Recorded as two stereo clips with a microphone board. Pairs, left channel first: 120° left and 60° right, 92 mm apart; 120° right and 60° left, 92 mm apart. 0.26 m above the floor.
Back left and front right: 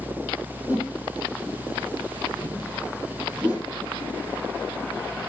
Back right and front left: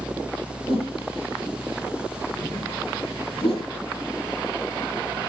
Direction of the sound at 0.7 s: 130° right.